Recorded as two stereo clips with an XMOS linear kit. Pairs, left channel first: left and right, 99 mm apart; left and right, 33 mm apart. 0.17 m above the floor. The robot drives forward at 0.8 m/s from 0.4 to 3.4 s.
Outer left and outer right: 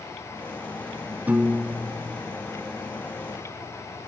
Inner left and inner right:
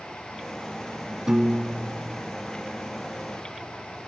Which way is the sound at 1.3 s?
15° right (ahead or behind).